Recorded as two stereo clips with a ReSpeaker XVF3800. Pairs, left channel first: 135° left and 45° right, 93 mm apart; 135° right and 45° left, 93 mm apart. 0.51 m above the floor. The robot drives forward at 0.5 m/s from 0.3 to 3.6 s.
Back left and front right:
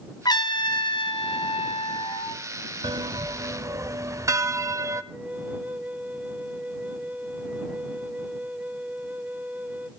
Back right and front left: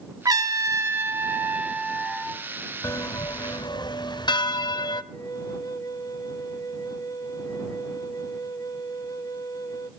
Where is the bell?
80° right, 1.0 m; by 5.0 s 100° right, 1.0 m.